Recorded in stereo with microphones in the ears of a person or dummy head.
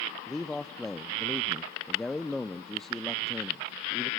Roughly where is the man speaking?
Centre.